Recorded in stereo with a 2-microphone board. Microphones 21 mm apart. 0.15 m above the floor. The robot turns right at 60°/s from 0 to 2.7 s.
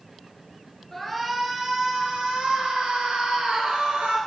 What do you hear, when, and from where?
0.9 s a shout: 160° left, 3 m; by 4.2 s 95° right, 3 m